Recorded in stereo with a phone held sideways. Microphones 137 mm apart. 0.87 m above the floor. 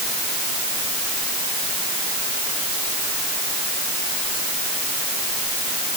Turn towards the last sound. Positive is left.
No sound to turn to.